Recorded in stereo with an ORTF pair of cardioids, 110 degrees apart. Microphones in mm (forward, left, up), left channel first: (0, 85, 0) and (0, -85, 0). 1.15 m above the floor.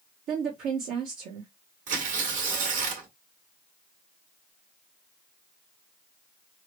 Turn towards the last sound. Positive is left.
turn(degrees=-55)